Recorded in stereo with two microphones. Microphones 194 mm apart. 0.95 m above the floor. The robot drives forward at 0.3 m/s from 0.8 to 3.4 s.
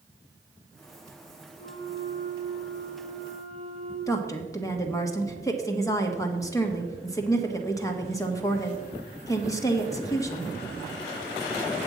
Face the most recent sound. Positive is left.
turn(degrees=15)  # may be behind; listen again after turning